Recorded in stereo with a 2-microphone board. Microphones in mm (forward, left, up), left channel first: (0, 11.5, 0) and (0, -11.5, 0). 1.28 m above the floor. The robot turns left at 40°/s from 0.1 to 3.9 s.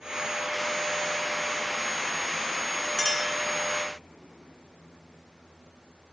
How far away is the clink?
About 2.5 m.